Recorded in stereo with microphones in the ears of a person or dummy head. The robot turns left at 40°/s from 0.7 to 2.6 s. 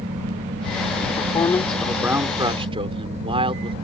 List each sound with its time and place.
1.1 s a man speaking: 30° left; by 3.8 s 30° right